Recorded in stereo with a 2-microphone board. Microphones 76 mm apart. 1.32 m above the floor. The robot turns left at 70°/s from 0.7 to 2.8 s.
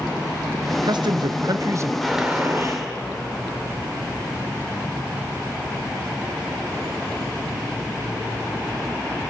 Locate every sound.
0.7 s a man speaking: 60° right, 1.2 m; by 1.9 s 145° right, 1.2 m
2.0 s a gunshot: 5° left, 4.5 m; by 2.9 s 50° right, 4.5 m